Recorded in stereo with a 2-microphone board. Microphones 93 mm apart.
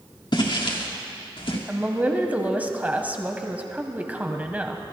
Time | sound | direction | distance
0.3 | footsteps | 60° left (ahead or behind) | 2.5 m
1.7 | a woman speaking | 15° right (ahead or behind) | 1.0 m